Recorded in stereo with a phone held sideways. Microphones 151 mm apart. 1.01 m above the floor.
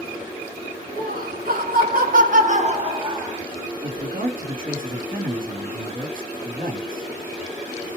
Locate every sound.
1.0 s laughter: 70° right (ahead or behind), 1.3 m; by 3.4 s 20° right (ahead or behind), 0.9 m
3.8 s a man speaking: 70° right (ahead or behind), 1.6 m